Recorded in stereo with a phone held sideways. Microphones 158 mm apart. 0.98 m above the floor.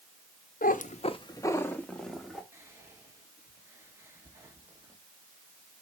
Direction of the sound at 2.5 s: 20° right (ahead or behind).